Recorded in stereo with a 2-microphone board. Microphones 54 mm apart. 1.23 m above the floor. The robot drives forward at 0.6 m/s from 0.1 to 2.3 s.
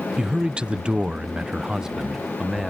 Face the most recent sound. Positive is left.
turn(degrees=-10)  # may be behind; listen again after turning